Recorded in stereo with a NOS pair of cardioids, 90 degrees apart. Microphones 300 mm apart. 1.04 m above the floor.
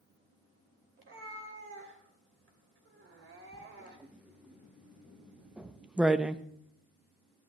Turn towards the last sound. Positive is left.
turn(degrees=-5)